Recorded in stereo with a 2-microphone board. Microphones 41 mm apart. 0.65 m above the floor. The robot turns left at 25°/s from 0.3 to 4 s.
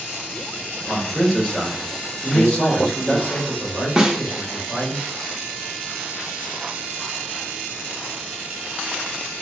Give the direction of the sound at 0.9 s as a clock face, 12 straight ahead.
6 o'clock.